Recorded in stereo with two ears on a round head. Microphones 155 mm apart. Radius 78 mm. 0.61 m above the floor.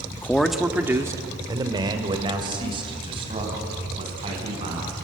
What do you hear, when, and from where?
0.1 s a man speaking: 15° left (ahead or behind), 1.1 m; by 4.9 s 30° right (ahead or behind), 7 m